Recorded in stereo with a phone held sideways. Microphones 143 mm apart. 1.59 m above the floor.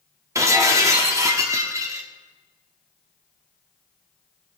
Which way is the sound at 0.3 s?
20° right (ahead or behind).